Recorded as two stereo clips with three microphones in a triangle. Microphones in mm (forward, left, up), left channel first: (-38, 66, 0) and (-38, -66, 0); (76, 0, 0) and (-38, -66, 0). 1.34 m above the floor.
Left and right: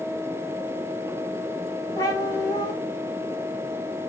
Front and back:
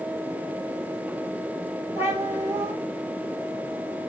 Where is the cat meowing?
140° left, 1.9 m.